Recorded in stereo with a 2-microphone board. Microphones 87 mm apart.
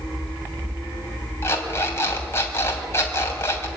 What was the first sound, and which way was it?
An alarm clock, 30° left (ahead or behind).